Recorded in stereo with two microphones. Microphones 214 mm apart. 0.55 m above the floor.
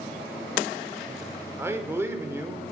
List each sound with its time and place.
1.6 s a man speaking: 10° right (ahead or behind), 1.8 m